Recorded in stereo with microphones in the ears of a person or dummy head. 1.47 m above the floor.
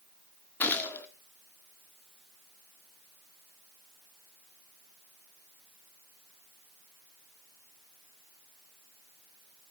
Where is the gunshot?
10° left (ahead or behind), 1.6 m.